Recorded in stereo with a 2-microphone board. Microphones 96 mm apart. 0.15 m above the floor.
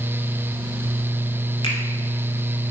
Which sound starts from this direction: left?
A finger snap, at 1.6 s.